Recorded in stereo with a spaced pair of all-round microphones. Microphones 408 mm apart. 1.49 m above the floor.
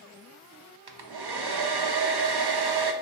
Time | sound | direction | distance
0.9 | a hair dryer | 70° right (ahead or behind) | 0.5 m